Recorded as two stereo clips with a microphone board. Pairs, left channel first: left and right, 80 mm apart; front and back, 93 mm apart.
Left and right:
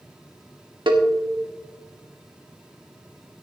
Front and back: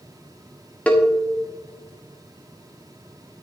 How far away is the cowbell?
About 1.5 m.